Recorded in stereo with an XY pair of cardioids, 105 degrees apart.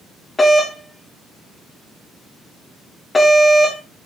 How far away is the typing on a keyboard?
No typing on a keyboard in this recording.